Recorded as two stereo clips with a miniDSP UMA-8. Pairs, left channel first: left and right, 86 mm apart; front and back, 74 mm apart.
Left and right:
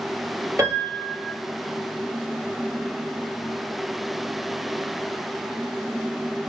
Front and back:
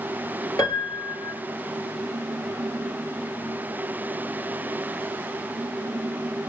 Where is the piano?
35° right, 1.9 m.